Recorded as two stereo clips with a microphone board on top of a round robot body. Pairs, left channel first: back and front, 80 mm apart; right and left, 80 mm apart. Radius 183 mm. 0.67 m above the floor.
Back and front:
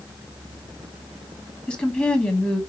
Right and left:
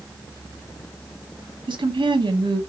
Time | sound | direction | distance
1.7 | a woman speaking | 105° left | 1.7 m